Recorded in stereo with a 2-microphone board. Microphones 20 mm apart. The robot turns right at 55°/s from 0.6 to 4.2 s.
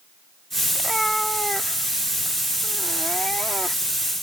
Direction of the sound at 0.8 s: 15° right.